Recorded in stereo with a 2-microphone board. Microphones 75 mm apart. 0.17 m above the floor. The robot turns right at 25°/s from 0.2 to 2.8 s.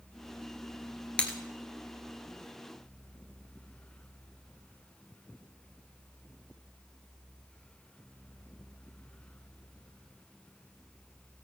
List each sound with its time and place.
1.2 s breaking glass: 20° left (ahead or behind), 1.4 m; by 1.4 s 25° left (ahead or behind), 1.4 m